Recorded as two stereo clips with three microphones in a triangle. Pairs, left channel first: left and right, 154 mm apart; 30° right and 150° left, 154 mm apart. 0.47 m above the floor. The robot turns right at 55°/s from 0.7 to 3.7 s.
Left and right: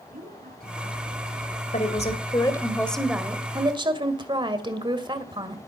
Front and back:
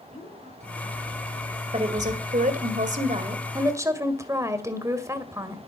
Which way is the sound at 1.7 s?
110° left.